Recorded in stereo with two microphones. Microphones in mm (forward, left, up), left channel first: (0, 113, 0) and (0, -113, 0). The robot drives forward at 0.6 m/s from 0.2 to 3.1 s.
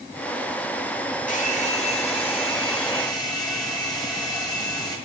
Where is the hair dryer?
35° left (ahead or behind), 1.1 m; by 5.0 s 20° left (ahead or behind), 2.0 m.